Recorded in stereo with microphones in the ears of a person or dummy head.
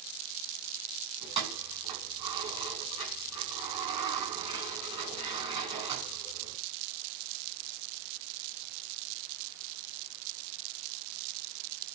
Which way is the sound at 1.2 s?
30° right (ahead or behind).